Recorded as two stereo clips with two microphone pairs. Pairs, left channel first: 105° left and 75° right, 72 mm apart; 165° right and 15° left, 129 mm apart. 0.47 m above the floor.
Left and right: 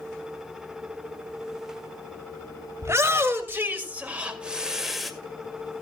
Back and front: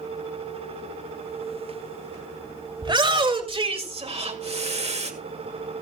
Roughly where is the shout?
Ahead right.